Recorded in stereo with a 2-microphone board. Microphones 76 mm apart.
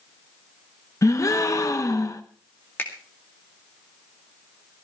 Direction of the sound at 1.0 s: 45° left (ahead or behind).